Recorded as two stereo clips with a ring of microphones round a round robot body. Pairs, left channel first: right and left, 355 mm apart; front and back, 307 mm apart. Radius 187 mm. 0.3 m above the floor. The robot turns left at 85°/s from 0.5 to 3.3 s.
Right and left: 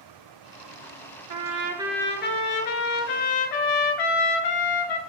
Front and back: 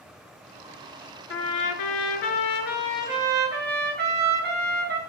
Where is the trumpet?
55° left, 2 m; by 5.0 s 115° right, 2 m.